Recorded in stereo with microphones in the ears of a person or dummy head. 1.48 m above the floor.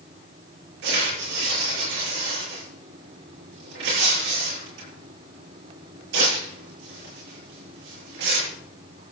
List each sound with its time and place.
0.8 s tearing paper: 80° right, 7.5 m